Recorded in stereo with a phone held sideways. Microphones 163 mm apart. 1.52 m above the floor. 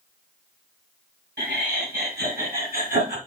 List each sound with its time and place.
1.4 s laughter: 85° right, 3 m; by 3.2 s 55° right (ahead or behind), 2 m